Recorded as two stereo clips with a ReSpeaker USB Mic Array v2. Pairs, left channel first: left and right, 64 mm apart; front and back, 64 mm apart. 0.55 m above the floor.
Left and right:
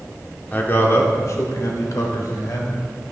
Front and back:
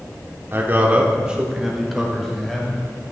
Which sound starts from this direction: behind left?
A man speaking, at 0.5 s.